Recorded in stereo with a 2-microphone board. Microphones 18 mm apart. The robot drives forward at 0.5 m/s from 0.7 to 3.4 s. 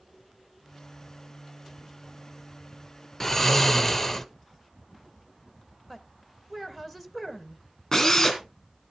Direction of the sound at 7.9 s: 20° left (ahead or behind).